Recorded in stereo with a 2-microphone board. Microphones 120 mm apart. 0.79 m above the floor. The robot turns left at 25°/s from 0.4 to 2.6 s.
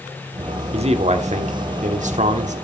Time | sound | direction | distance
0.7 | a man speaking | 55° right | 1.4 m